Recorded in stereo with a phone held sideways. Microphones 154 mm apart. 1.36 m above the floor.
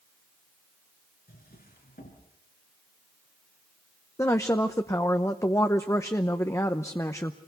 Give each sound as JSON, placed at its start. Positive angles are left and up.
{"t": 1.3, "sound": "a drawer", "side_deg": 75, "distance_m": 4.5}
{"t": 4.2, "sound": "a woman speaking", "side_deg": 20, "distance_m": 0.8}